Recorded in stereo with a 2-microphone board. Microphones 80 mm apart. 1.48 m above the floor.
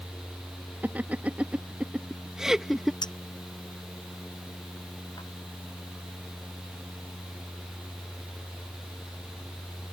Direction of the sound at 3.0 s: 60° left (ahead or behind).